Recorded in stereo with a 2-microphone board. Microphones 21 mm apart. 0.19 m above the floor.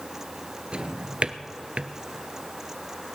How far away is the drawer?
About 0.8 m.